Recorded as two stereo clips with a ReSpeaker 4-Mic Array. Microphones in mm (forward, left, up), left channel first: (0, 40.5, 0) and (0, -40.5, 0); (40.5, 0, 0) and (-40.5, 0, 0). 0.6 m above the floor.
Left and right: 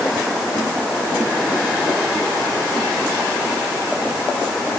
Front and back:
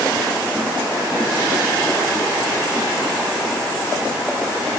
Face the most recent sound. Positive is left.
No sound to turn to.